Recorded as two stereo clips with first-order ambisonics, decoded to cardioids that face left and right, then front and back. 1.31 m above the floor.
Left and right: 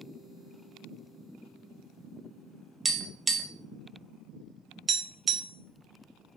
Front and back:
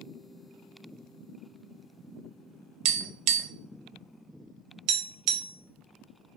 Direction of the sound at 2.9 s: 165° right.